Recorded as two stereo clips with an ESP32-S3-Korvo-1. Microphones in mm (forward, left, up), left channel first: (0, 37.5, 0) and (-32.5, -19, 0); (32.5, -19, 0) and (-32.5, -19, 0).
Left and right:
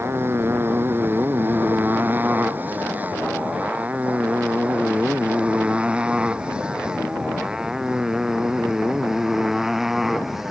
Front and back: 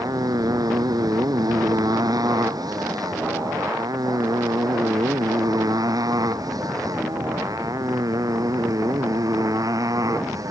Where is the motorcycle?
170° right; by 10.5 s 155° left.